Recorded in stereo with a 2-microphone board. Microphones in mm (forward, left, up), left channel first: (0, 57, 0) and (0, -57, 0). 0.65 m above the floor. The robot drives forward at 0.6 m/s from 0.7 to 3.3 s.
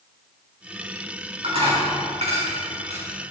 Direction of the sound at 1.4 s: 65° right (ahead or behind).